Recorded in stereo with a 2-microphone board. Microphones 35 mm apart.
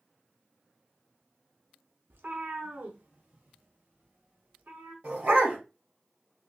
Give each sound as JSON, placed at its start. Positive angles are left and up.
{"t": 2.1, "sound": "a cat meowing", "side_deg": -80, "distance_m": 0.6}
{"t": 5.0, "sound": "a dog barking", "side_deg": -55, "distance_m": 2.0}